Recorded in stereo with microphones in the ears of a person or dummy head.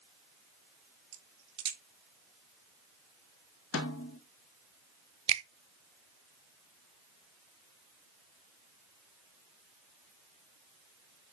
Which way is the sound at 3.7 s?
80° left.